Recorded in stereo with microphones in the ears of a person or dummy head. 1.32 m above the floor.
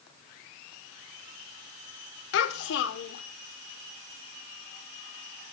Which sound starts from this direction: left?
A child speaking, at 2.3 s.